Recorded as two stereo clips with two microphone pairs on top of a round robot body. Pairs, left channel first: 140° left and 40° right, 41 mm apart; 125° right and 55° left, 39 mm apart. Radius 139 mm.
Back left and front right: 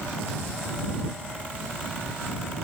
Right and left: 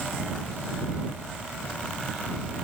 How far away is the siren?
I don't hear a siren.